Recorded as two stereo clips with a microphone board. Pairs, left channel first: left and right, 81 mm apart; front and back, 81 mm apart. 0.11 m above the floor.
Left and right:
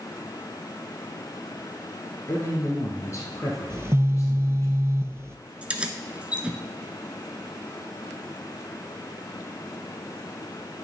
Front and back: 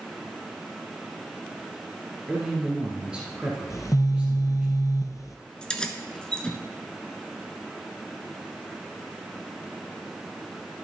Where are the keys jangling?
50° right, 0.8 m.